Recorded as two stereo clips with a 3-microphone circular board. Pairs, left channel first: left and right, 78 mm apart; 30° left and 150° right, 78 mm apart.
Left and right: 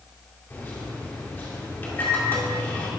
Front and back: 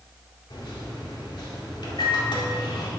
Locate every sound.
0.5 s a microwave: 25° left, 2 m